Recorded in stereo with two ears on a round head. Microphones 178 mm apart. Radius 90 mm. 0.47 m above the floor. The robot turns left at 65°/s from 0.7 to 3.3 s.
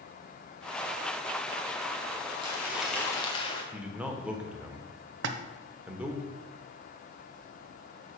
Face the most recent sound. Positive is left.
turn(degrees=-65)  # may be behind; listen again after turning